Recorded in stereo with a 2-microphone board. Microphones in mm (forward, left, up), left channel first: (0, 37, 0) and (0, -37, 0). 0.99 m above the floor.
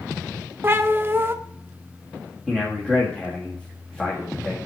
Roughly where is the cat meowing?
Right.